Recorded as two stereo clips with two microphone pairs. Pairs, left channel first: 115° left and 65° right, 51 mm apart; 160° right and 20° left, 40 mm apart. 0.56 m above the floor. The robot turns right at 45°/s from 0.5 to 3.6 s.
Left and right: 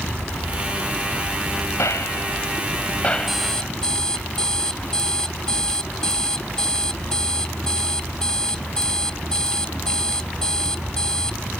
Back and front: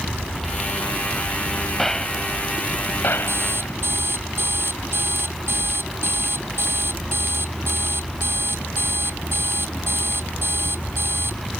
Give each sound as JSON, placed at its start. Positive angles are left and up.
{"t": 1.8, "sound": "a gunshot", "azimuth_deg": 120}
{"t": 3.3, "sound": "an alarm clock", "azimuth_deg": 20}